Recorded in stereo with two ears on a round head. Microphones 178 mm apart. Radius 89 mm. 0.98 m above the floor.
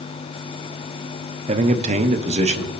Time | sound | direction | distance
1.5 | a man speaking | 30° right (ahead or behind) | 0.6 m